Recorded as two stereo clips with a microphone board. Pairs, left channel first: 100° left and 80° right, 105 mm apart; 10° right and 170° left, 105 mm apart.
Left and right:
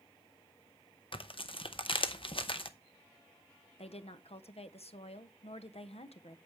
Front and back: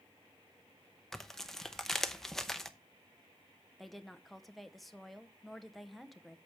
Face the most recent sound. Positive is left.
turn(degrees=80)